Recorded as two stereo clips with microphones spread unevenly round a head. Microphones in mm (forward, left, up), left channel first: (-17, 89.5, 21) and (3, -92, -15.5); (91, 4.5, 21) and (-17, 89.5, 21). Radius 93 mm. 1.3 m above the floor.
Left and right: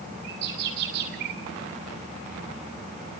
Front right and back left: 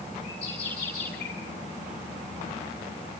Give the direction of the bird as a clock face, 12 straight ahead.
4 o'clock.